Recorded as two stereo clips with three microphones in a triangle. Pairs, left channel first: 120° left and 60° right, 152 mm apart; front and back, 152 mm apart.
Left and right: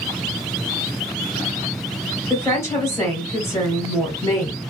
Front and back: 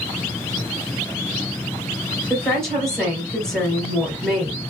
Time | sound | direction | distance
2.3 | a woman speaking | 75° left | 1.2 m